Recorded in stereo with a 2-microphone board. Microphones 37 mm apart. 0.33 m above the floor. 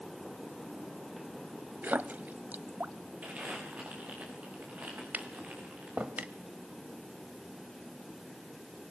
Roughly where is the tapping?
Right.